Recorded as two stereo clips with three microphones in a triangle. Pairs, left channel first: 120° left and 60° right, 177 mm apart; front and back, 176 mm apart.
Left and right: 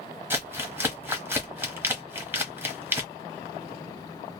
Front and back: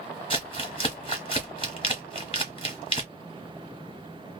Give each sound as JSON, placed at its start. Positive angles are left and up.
{"t": 0.3, "sound": "crumpling", "azimuth_deg": 10, "distance_m": 1.0}